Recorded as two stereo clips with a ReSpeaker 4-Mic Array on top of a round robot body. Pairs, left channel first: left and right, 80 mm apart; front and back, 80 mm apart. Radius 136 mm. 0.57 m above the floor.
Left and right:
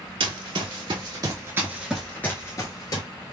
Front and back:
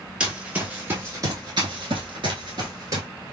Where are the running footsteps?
105° right, 1.1 m; by 3.1 s 130° left, 0.9 m.